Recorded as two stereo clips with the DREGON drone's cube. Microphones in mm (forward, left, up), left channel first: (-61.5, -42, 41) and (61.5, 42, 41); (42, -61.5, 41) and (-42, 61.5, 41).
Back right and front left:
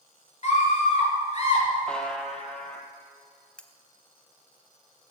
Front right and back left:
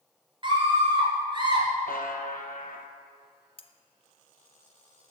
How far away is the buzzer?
About 1.2 m.